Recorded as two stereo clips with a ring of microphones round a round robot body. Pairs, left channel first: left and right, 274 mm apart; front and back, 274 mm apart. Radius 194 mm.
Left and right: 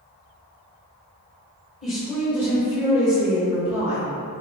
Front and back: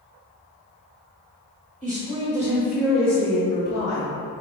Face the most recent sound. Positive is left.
turn(degrees=-35)